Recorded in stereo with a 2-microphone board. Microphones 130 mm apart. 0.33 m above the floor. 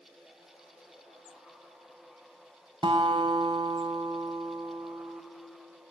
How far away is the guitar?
About 0.6 m.